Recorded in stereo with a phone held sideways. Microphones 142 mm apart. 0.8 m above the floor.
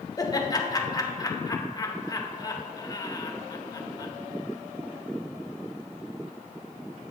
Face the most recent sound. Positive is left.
turn(degrees=25)  # may be behind; listen again after turning